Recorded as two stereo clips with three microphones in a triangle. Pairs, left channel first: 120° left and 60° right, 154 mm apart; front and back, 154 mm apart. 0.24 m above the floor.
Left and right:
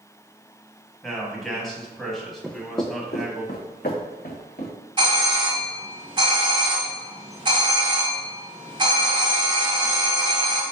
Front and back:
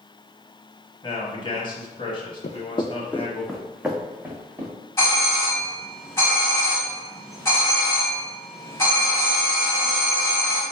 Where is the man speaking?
35° left, 1.1 m.